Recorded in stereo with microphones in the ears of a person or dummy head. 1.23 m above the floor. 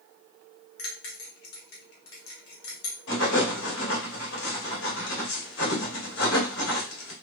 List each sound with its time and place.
0.8 s a bell: 70° left (ahead or behind), 1.1 m
3.1 s writing: 75° left (ahead or behind), 2 m